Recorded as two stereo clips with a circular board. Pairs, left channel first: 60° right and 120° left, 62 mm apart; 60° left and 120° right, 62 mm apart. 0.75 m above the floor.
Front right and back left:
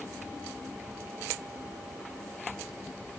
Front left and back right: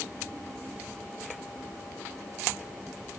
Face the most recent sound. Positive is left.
No sound to turn to.